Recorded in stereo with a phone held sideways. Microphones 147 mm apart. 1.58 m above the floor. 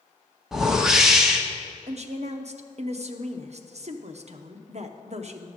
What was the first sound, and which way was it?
A whoosh, 5° right (ahead or behind).